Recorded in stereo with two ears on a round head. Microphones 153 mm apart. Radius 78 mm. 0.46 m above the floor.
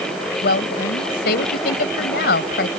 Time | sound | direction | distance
0.4 | a woman speaking | 65° left (ahead or behind) | ?